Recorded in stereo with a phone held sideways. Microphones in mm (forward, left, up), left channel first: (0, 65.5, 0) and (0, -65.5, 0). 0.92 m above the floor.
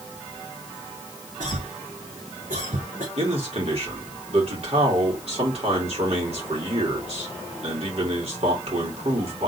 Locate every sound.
1.4 s a cough: 75° right (ahead or behind), 1.4 m
3.2 s a man speaking: 55° right (ahead or behind), 3 m